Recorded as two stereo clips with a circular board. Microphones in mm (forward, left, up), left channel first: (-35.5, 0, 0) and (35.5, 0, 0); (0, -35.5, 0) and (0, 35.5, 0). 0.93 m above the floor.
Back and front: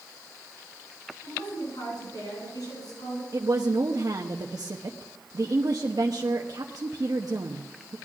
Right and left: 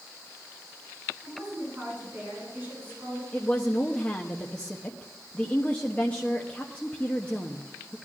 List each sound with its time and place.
1.2 s a woman speaking: 160° left, 10 m; by 3.2 s 155° left, 8.5 m
3.3 s a woman speaking: 20° right, 1.0 m